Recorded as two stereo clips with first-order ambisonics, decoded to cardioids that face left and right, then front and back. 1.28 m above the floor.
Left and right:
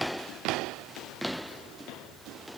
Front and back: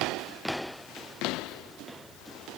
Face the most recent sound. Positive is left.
No sound to turn to.